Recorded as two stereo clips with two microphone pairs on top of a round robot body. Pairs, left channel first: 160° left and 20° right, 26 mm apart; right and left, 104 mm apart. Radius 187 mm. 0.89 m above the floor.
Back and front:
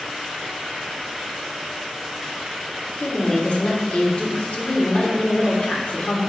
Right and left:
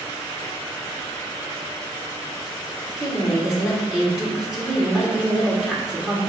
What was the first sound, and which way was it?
A woman speaking, 175° left.